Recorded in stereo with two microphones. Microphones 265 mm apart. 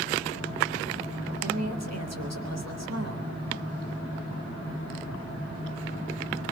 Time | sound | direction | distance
1.4 | a woman speaking | 75° right (ahead or behind) | 3.5 m